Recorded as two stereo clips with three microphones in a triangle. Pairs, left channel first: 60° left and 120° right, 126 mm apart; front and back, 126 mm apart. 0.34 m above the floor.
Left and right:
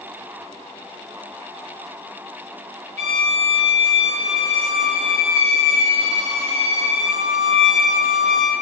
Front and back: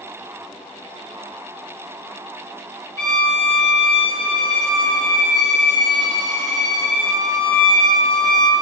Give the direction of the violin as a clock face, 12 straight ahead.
4 o'clock.